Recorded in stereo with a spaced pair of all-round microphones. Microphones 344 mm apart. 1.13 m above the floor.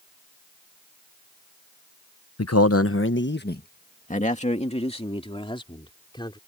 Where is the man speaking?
45° left (ahead or behind); by 6.4 s 15° left (ahead or behind).